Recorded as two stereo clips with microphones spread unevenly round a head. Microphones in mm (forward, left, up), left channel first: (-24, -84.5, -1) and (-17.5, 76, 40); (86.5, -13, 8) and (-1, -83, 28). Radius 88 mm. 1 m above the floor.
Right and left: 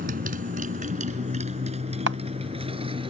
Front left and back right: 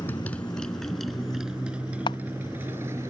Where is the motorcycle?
120° left; by 3.1 s 145° left.